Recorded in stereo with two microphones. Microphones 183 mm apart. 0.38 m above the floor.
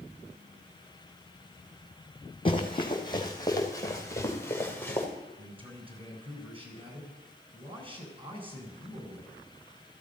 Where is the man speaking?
30° right (ahead or behind), 3.5 m.